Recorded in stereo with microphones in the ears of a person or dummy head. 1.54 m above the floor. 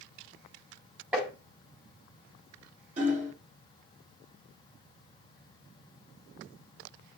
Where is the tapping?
5° right (ahead or behind), 2.5 m.